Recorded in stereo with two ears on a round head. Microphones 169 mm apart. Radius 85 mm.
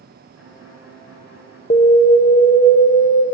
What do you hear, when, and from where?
0.3 s a violin: 80° left, 5 m
1.7 s an alarm: 35° left (ahead or behind), 0.6 m